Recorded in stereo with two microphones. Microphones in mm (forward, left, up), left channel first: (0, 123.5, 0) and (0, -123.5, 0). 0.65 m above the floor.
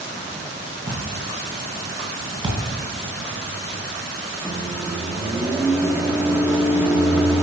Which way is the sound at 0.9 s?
35° right (ahead or behind).